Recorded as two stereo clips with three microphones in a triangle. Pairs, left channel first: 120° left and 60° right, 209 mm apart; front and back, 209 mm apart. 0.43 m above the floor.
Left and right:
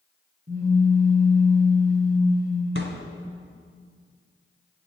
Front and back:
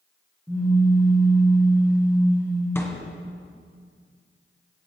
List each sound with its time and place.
0.5 s a pop: 100° right, 4.5 m
2.8 s a thud: 80° right, 1.7 m